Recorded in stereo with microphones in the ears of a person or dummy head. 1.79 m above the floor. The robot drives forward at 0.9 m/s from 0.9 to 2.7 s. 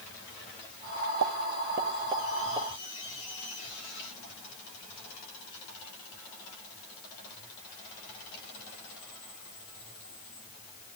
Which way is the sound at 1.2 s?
65° right (ahead or behind).